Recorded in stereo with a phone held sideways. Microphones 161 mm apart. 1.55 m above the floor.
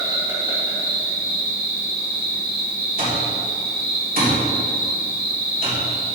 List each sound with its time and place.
0.0 s an insect: 30° right (ahead or behind), 3 m
3.0 s an alarm clock: 65° right (ahead or behind), 3 m